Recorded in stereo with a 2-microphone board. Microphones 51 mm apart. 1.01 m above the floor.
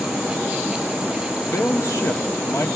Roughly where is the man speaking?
Left.